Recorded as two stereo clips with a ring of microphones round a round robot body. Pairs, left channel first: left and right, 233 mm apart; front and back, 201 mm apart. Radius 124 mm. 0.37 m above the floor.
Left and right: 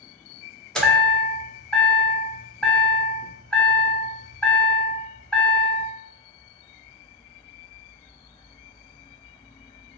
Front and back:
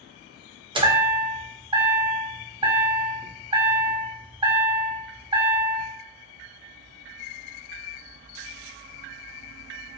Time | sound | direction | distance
0.8 | a chime | 170° left | 0.9 m